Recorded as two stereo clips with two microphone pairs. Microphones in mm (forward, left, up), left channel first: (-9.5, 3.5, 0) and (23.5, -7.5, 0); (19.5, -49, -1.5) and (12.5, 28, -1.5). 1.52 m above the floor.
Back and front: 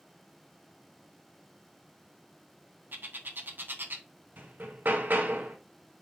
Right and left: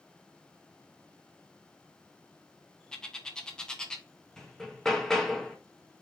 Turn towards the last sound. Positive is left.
turn(degrees=0)